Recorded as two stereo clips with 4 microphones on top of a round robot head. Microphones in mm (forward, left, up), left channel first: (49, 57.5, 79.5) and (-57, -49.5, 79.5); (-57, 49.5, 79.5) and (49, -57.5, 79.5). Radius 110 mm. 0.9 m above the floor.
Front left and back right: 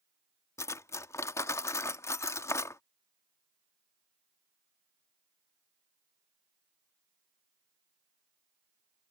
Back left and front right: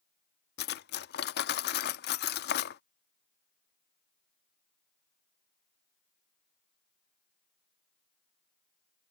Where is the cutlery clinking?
120° left.